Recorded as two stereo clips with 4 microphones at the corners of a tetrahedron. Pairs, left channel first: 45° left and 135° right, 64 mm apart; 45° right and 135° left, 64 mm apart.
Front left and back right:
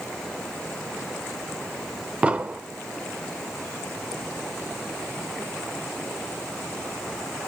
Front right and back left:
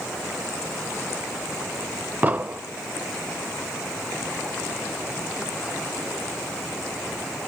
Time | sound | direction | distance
2.2 | an explosion | 175° left | 0.9 m